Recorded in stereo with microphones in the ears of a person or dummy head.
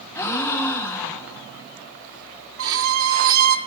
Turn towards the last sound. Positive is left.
turn(degrees=-75)  # may be behind; listen again after turning